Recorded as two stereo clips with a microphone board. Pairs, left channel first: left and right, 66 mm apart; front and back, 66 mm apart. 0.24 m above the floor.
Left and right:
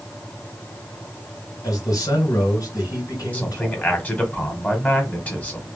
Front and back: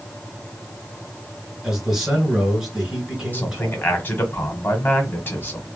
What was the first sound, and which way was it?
A man speaking, 95° left.